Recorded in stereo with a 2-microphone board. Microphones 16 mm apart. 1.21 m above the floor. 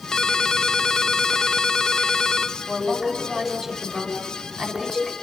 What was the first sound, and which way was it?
A ringtone, 40° left (ahead or behind).